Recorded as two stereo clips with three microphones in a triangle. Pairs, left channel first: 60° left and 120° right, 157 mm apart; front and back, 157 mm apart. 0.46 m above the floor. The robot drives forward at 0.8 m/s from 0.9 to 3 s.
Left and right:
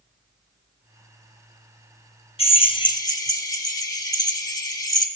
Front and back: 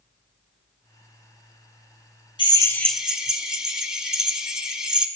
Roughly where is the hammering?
No hammering in this recording.